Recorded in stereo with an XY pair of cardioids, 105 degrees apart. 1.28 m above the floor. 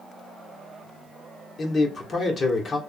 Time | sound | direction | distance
1.6 | a man speaking | 40° left | 1.3 m